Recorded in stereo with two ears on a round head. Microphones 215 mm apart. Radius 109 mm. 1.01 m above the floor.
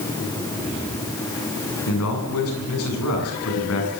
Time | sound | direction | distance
1.9 | a man speaking | 70° left (ahead or behind) | 8 m